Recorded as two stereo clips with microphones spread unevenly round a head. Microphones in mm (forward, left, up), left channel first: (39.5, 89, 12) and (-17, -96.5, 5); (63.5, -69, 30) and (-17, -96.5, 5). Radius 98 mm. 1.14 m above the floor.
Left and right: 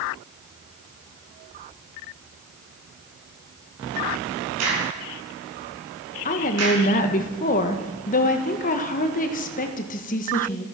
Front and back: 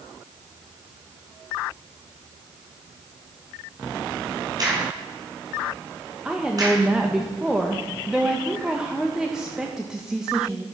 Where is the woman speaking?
120° left, 1.3 m.